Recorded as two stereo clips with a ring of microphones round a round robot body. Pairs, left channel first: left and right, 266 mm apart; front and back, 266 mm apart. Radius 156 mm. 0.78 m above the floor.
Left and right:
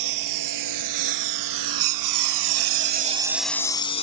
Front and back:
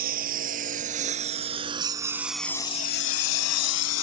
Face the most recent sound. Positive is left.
turn(degrees=25)